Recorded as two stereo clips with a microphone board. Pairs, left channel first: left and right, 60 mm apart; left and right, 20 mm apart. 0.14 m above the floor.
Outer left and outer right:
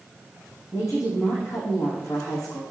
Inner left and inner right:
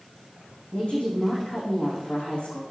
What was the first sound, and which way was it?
A woman speaking, 60° left (ahead or behind).